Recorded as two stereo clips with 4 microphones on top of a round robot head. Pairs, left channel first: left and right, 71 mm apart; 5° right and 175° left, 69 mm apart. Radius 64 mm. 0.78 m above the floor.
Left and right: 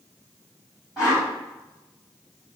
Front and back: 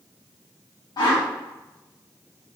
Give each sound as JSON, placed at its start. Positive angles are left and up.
{"t": 1.0, "sound": "a whoosh", "azimuth_deg": -15, "distance_m": 1.8}